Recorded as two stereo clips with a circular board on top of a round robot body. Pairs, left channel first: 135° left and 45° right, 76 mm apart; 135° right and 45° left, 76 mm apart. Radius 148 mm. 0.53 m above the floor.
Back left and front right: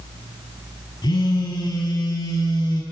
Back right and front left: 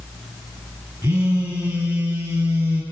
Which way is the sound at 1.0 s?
115° left.